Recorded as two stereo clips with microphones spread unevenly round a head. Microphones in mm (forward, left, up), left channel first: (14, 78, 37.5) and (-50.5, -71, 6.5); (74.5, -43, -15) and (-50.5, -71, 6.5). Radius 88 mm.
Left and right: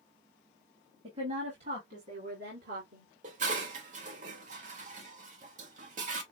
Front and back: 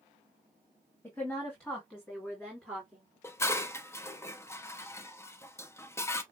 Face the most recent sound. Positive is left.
turn(degrees=-60)